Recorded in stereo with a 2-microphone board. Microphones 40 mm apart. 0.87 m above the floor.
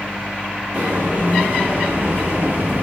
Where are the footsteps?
40° right (ahead or behind), 1.6 m.